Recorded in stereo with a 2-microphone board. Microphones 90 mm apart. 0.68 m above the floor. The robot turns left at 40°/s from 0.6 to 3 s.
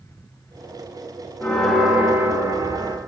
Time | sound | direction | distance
1.4 | a bell | 15° left | 0.7 m